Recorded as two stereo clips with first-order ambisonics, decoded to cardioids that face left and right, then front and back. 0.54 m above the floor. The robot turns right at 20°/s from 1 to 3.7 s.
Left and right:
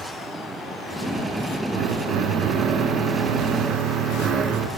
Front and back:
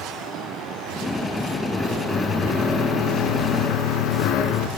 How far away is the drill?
About 4 m.